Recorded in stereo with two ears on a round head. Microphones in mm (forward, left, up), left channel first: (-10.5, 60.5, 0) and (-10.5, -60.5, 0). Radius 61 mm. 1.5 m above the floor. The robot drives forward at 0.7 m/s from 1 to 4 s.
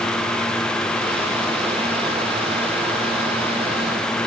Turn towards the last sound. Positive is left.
No sound to turn to.